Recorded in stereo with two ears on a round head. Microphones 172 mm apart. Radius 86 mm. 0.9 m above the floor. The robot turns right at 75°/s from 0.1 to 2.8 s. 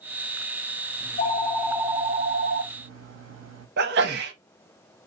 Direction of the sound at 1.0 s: 120° left.